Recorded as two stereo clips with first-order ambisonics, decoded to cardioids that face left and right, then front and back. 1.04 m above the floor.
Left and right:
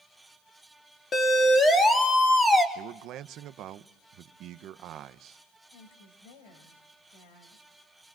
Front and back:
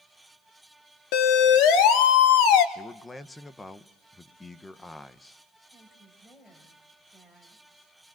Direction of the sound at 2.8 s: 80° right.